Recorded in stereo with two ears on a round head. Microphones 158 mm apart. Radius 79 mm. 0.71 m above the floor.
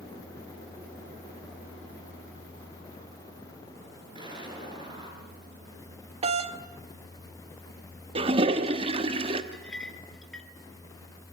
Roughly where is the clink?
Centre.